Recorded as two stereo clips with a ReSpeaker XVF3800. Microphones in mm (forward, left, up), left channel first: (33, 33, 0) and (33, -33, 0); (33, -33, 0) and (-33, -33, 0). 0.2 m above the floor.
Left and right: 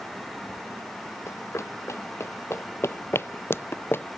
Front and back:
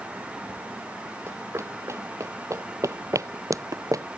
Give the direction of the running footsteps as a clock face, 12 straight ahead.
8 o'clock.